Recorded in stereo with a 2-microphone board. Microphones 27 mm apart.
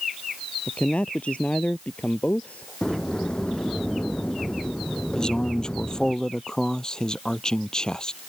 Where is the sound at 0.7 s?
50° left (ahead or behind); by 2.7 s 65° left (ahead or behind).